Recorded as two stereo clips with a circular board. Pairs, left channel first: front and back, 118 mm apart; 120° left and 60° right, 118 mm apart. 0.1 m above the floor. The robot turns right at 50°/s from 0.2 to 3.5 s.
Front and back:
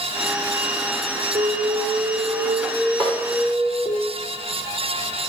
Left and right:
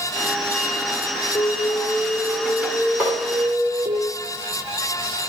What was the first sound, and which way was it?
An alarm, 135° left.